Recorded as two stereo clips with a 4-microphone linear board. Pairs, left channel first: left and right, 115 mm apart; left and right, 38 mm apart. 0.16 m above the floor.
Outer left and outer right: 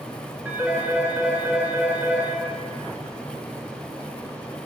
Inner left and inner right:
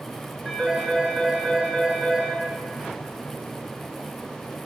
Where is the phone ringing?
15° right (ahead or behind), 1.8 m.